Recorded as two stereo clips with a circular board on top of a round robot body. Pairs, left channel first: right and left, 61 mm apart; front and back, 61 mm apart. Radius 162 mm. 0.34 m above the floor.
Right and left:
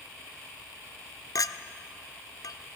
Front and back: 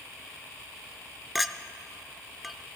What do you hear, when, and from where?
1.4 s a clink: 90° right, 0.6 m